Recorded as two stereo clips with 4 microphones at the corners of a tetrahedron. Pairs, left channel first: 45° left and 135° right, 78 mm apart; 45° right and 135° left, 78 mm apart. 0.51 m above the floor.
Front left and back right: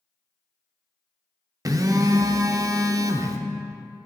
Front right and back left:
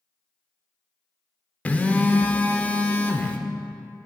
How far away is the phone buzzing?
About 0.5 m.